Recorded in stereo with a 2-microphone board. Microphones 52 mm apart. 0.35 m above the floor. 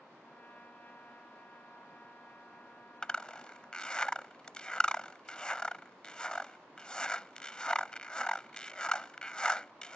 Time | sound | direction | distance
0.2 | a trumpet | 40° left (ahead or behind) | ?
3.0 | a zipper | 20° left (ahead or behind) | ?